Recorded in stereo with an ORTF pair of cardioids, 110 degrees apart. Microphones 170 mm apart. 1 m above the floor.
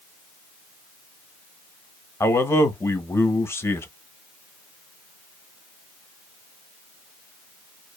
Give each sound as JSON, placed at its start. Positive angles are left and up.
{"t": 2.2, "sound": "a man speaking", "azimuth_deg": 15, "distance_m": 0.7}